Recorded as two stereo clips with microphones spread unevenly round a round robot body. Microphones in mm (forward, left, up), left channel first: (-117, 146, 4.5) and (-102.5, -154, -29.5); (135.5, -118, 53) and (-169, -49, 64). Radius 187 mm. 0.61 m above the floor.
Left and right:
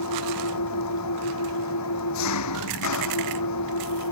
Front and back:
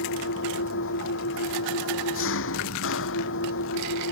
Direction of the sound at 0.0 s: 45° left.